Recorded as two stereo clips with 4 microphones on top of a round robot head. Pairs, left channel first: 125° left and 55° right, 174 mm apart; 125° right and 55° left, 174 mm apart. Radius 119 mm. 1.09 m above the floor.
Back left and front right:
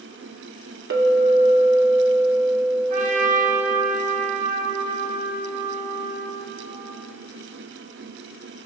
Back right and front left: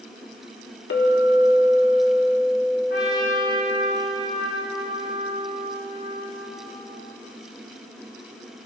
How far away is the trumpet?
About 5 m.